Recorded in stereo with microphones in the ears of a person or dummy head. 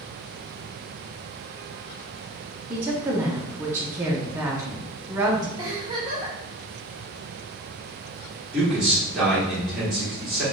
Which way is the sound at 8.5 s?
5° right (ahead or behind).